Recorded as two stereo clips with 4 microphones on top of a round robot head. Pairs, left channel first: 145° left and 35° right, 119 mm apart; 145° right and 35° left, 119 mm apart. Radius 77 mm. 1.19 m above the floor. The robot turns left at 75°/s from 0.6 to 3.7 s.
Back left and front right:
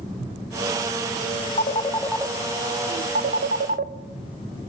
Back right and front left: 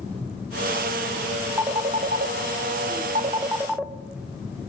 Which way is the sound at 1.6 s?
110° left.